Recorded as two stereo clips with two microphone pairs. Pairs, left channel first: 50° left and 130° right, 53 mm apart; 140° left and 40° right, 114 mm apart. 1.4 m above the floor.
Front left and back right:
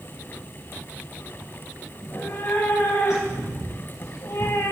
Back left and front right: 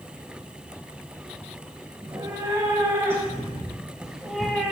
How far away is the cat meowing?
About 4.5 m.